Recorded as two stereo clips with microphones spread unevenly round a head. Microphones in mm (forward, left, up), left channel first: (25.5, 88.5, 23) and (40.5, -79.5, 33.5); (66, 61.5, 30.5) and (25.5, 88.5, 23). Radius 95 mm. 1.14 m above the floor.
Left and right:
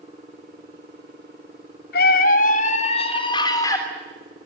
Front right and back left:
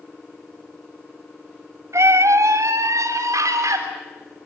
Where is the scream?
130° left, 3 m; by 3.8 s 170° left, 3.5 m.